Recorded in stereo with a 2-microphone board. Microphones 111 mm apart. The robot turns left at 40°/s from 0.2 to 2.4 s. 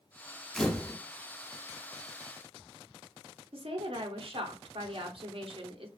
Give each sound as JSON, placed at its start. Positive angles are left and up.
{"t": 0.6, "sound": "a camera shutter", "side_deg": 5, "distance_m": 0.5}
{"t": 3.5, "sound": "a woman speaking", "side_deg": -55, "distance_m": 0.8}